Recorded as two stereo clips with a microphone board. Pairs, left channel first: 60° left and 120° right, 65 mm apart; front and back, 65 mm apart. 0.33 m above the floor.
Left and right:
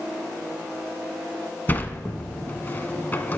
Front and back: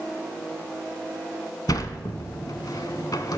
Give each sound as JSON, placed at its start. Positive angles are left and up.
{"t": 1.7, "sound": "a sliding door", "azimuth_deg": 0, "distance_m": 0.9}